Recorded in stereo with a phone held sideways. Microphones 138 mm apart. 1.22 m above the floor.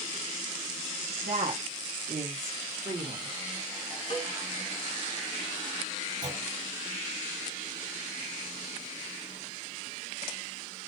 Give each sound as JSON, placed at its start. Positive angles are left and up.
{"t": 1.2, "sound": "a woman speaking", "side_deg": -75, "distance_m": 2.0}
{"t": 4.1, "sound": "a cowbell", "side_deg": 45, "distance_m": 1.7}
{"t": 6.2, "sound": "a clunk", "side_deg": -65, "distance_m": 3.0}